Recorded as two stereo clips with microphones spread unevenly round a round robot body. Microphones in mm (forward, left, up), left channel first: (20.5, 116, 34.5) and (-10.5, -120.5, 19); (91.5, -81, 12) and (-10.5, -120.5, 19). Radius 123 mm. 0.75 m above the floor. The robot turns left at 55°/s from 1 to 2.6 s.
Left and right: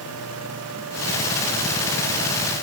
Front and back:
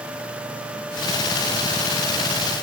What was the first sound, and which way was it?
Only background noise.